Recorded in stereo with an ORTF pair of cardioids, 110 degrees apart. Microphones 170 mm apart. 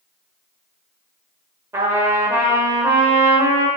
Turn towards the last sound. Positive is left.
turn(degrees=-15)